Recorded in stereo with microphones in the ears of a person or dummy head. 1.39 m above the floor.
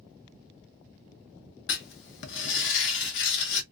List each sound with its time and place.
1.7 s writing: 65° left (ahead or behind), 0.6 m